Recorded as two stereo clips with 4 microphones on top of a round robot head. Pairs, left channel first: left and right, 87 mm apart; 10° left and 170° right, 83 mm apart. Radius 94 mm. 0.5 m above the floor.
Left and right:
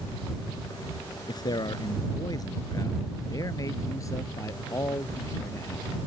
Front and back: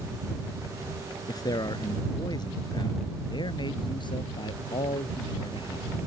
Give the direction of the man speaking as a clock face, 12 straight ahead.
10 o'clock.